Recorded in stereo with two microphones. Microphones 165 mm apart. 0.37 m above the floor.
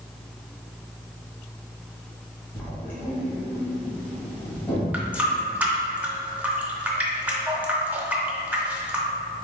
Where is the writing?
10° left (ahead or behind), 1.7 m.